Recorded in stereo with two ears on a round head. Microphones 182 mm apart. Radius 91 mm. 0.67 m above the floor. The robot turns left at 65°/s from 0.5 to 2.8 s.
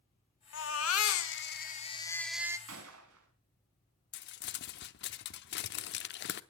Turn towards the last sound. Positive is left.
turn(degrees=55)  # may be behind; listen again after turning